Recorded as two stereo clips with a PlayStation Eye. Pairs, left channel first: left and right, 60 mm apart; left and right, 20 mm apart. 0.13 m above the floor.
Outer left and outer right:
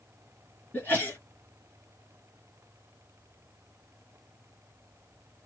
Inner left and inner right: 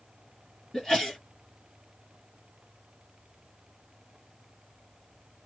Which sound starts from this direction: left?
A sneeze, at 0.7 s.